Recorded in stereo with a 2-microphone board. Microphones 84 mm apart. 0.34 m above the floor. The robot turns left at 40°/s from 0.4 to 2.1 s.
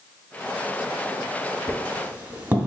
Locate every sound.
1.7 s a squeak: 40° right (ahead or behind), 0.6 m; by 2.7 s 20° right (ahead or behind), 0.6 m